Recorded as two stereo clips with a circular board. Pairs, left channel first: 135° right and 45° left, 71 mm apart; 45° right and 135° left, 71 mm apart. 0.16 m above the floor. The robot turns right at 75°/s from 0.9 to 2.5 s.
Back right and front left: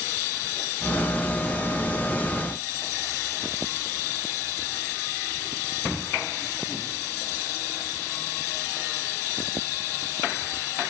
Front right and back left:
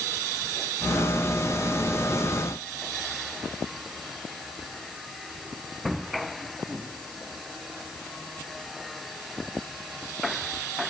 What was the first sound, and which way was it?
Only background noise.